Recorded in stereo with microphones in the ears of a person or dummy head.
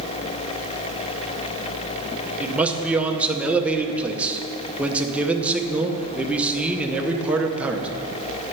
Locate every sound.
2.4 s a man speaking: 5° right (ahead or behind), 0.6 m